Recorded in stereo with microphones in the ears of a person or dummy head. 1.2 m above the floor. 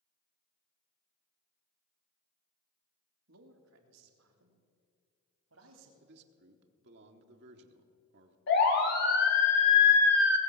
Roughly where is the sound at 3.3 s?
Right.